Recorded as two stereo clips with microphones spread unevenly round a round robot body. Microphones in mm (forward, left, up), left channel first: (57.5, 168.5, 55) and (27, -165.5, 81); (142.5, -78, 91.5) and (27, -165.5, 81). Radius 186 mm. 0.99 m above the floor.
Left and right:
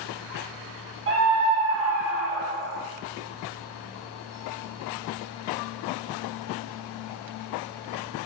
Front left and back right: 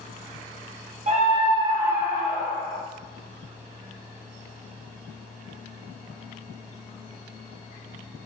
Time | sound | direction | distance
1.1 | a scream | 140° right | 1.2 m